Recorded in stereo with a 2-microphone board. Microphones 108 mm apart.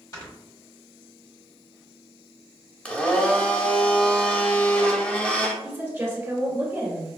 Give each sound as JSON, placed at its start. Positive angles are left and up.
{"t": 0.1, "sound": "snoring", "side_deg": 35, "distance_m": 1.3}
{"t": 2.9, "sound": "a blender", "side_deg": 15, "distance_m": 0.6}
{"t": 5.6, "sound": "a woman speaking", "side_deg": -25, "distance_m": 1.3}